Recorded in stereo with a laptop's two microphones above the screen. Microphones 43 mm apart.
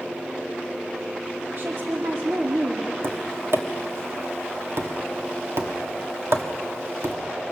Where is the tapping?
70° right (ahead or behind), 1.6 m.